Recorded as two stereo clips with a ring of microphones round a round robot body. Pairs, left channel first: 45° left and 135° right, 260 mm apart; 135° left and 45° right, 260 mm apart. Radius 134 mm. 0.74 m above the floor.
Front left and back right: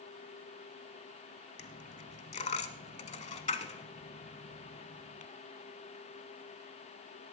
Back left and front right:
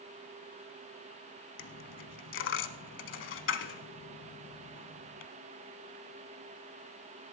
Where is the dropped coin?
105° left, 0.8 m.